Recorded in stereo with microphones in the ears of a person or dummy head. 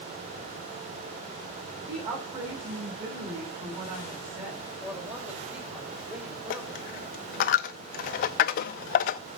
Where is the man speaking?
10° right (ahead or behind), 4.5 m.